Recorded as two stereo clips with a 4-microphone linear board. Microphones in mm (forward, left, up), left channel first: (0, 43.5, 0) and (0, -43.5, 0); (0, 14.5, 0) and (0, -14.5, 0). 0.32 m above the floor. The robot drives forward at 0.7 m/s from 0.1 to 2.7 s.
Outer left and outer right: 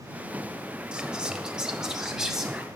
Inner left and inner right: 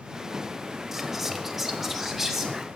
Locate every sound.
0.9 s whispering: 10° right (ahead or behind), 1.1 m; by 2.7 s 5° right (ahead or behind), 2.0 m